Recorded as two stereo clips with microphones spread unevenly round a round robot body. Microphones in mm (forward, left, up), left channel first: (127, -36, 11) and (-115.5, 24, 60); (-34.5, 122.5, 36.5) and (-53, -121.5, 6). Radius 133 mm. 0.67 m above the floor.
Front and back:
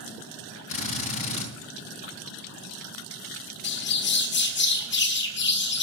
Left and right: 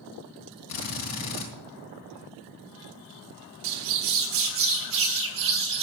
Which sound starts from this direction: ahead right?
A bird, at 3.6 s.